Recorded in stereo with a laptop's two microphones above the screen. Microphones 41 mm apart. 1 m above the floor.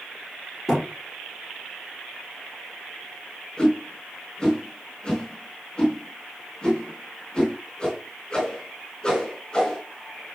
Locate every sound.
0.7 s a thud: 5° right (ahead or behind), 5.5 m
3.6 s a whoosh: 15° left (ahead or behind), 4 m